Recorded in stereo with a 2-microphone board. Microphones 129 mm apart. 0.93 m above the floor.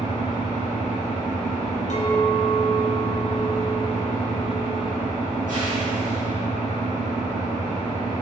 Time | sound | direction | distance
0.0 | an engine running | 80° right | 1.3 m
1.9 | a clink | 65° left (ahead or behind) | 0.6 m